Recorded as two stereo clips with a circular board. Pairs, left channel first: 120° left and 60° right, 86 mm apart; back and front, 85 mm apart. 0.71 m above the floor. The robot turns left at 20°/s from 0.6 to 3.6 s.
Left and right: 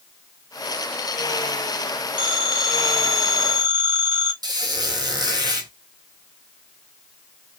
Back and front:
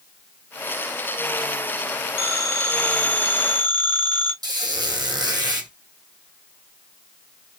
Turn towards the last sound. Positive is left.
turn(degrees=-30)